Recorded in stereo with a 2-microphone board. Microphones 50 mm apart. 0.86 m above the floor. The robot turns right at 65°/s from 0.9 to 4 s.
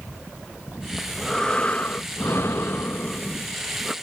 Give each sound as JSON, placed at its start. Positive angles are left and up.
{"t": 1.0, "sound": "breathing", "azimuth_deg": -10}